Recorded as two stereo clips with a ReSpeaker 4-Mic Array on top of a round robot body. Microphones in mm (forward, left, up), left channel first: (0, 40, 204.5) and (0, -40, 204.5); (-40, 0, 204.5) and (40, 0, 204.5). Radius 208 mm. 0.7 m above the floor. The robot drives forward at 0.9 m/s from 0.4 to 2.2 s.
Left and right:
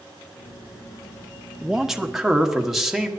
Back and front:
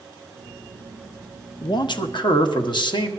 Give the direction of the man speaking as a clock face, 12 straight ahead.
6 o'clock.